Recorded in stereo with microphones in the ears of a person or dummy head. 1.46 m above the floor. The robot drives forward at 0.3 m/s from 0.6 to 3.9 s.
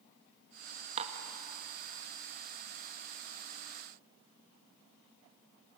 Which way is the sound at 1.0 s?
35° right (ahead or behind).